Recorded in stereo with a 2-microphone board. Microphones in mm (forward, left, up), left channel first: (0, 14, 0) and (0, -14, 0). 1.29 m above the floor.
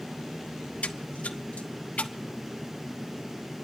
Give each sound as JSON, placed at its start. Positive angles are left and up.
{"t": 0.8, "sound": "a splash", "side_deg": 55, "distance_m": 1.1}